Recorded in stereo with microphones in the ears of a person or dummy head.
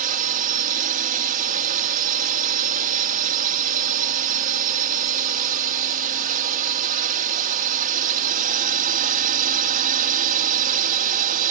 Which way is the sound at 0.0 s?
40° right (ahead or behind).